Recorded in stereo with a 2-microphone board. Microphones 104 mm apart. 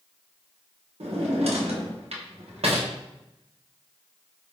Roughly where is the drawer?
Right.